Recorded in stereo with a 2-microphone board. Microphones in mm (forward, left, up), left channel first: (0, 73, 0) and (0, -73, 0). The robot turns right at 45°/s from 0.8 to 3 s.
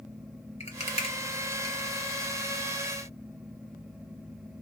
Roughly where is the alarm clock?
No alarm clock in this recording.